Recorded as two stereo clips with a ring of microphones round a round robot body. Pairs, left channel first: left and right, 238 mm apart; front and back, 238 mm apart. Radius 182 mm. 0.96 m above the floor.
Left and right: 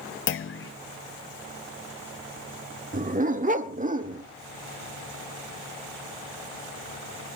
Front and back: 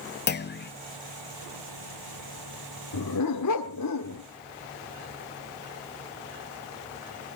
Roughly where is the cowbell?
I don't hear a cowbell.